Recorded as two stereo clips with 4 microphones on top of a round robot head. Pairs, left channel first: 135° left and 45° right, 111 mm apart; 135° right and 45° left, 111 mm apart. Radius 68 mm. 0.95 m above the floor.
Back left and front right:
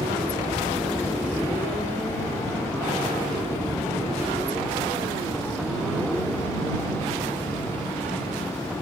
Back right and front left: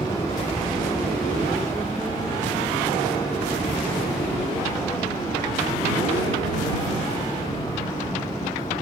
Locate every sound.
0.0 s a helicopter: 95° right; by 8.8 s 120° right